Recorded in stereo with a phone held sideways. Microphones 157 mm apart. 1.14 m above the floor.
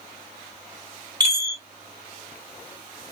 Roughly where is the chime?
Right.